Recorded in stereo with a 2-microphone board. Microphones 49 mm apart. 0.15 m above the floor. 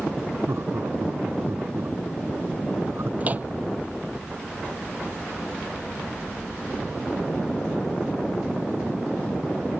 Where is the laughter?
70° right (ahead or behind); by 3.1 s 60° right (ahead or behind).